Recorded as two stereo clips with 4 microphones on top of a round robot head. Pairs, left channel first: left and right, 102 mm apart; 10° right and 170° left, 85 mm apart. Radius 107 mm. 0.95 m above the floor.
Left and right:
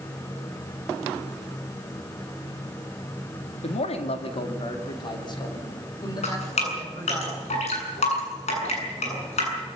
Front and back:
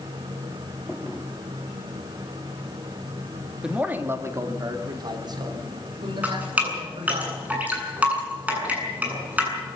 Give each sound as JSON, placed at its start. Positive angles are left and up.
{"t": 3.6, "sound": "a man speaking", "azimuth_deg": 90, "distance_m": 2.0}
{"t": 6.2, "sound": "dripping", "azimuth_deg": 95, "distance_m": 8.5}